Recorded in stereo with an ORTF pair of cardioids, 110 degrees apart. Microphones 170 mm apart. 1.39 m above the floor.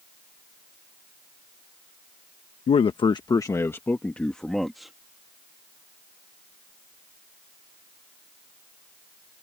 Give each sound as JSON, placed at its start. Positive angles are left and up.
{"t": 2.7, "sound": "a man speaking", "azimuth_deg": 40}